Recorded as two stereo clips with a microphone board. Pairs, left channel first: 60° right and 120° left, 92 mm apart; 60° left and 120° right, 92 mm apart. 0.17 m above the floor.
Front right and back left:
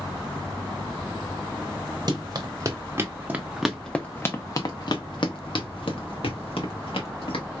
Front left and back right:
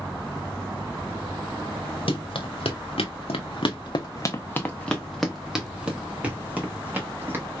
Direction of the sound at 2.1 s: 75° left.